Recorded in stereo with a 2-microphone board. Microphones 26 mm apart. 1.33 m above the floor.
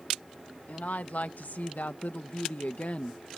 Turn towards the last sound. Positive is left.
turn(degrees=45)  # may be behind; listen again after turning